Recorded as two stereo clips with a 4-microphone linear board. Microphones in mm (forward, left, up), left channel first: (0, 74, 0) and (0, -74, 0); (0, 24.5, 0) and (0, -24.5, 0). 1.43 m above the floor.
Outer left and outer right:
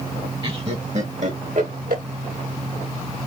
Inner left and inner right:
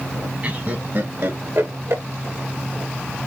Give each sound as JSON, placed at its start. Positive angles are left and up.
{"t": 0.4, "sound": "laughter", "side_deg": -35, "distance_m": 1.5}